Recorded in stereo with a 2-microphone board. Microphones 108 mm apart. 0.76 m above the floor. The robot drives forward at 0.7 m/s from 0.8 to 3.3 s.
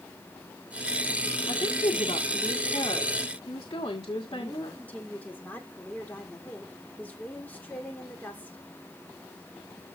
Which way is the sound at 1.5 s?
65° left (ahead or behind).